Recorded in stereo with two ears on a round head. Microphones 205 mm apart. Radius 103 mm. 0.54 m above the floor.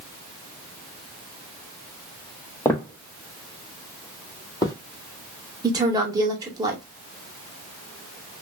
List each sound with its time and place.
2.6 s footsteps: 10° left (ahead or behind), 0.7 m; by 4.8 s 15° left (ahead or behind), 1.0 m
5.6 s a woman speaking: 15° right (ahead or behind), 0.8 m